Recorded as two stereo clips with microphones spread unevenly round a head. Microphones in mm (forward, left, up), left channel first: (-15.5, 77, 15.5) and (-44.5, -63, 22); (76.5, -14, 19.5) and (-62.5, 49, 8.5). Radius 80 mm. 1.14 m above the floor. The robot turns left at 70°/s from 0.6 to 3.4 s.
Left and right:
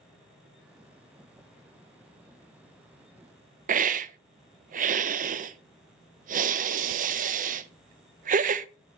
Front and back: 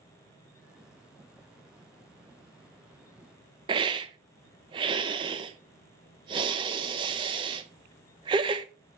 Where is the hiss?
140° right, 0.5 m.